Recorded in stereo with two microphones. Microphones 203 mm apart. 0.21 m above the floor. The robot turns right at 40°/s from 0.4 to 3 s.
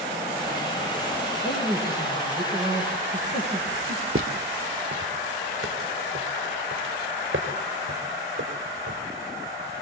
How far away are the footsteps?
About 1.9 m.